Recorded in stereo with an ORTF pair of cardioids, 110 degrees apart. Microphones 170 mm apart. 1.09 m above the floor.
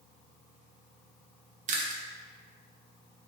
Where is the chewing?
50° right, 0.6 m.